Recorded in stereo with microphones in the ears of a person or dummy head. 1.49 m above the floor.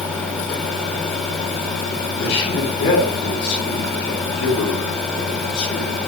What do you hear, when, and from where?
2.2 s a man speaking: 25° left (ahead or behind), 8 m